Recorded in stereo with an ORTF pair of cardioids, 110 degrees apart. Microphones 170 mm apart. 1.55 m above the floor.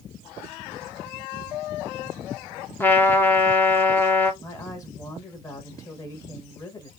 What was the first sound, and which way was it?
A trumpet, 10° left.